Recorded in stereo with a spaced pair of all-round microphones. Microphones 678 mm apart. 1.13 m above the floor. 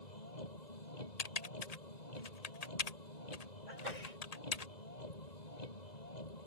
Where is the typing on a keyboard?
65° left (ahead or behind).